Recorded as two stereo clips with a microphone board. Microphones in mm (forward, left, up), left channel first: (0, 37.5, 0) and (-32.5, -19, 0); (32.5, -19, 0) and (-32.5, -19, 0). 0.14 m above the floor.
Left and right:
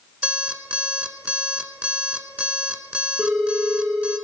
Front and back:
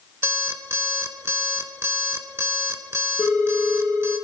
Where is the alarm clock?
Straight behind, 0.9 m.